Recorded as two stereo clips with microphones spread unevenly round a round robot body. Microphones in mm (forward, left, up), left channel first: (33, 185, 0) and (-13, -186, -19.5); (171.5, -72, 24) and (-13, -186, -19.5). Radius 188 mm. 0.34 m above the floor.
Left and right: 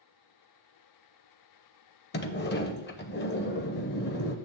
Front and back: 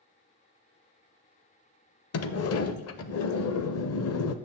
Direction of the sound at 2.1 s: 20° left.